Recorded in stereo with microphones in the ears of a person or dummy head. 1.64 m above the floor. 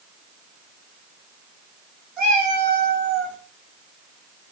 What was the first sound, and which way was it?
A cat meowing, 5° right (ahead or behind).